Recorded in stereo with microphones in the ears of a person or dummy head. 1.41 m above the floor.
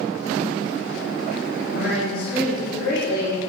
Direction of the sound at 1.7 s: 50° left (ahead or behind).